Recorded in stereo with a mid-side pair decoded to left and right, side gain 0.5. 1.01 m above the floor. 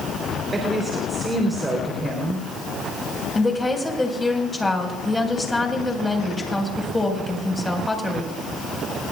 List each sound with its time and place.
0.5 s a woman speaking: 25° right, 4 m
3.4 s a woman speaking: 15° left, 5 m